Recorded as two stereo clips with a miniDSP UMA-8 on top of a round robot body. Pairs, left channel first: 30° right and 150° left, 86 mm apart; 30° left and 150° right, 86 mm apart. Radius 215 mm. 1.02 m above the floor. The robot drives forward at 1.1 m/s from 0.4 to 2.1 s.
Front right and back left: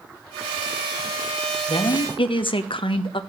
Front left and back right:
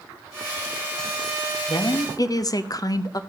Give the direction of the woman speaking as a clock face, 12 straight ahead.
12 o'clock.